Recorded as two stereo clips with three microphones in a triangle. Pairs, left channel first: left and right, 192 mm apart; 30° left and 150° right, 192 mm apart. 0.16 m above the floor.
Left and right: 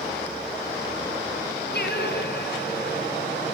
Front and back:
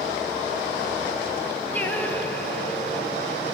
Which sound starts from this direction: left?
Singing, at 1.7 s.